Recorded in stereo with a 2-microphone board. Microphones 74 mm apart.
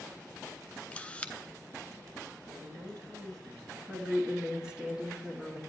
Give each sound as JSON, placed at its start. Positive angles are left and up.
{"t": 0.9, "sound": "a camera shutter", "side_deg": 15, "distance_m": 0.7}
{"t": 2.5, "sound": "a woman speaking", "side_deg": -70, "distance_m": 3.5}
{"t": 3.9, "sound": "a woman speaking", "side_deg": -10, "distance_m": 1.2}